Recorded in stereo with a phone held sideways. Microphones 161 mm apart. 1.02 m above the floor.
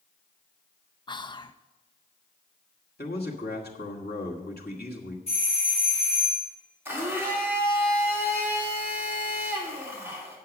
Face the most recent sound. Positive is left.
turn(degrees=-15)  # may be behind; listen again after turning